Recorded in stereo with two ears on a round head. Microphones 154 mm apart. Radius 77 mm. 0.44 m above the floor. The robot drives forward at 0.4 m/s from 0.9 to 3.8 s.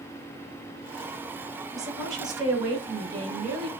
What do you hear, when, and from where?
1.7 s a woman speaking: 20° right (ahead or behind), 4 m; by 3.7 s 25° right (ahead or behind), 3 m